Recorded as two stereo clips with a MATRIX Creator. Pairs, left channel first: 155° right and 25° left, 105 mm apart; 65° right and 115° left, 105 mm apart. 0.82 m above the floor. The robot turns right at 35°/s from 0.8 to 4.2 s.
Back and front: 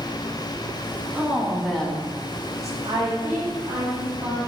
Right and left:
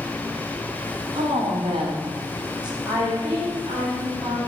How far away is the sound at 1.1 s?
About 0.7 m.